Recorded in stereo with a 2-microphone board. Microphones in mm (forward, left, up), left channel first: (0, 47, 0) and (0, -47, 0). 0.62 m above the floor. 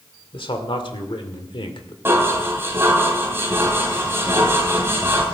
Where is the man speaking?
65° left (ahead or behind), 1.9 m.